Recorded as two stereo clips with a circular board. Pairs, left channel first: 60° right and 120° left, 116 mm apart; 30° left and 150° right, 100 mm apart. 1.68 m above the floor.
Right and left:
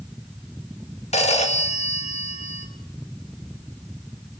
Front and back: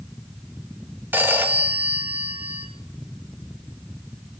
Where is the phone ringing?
80° right, 1.9 m.